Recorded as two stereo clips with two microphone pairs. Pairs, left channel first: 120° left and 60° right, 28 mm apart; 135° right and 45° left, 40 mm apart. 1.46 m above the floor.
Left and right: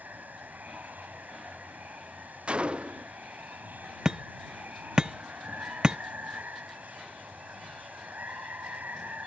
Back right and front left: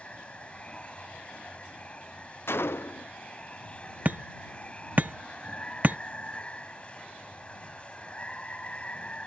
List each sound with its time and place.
0.0 s running water: 70° right
2.5 s a gunshot: 115° right
4.0 s hammering: 5° right